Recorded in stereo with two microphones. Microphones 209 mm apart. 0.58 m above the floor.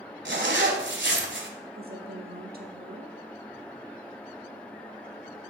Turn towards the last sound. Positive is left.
turn(degrees=-45)  # may be behind; listen again after turning